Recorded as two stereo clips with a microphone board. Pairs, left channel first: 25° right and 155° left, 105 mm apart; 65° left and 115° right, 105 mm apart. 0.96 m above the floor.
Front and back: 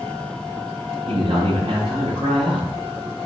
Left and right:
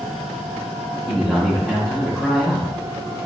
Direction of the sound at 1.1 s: 150° left.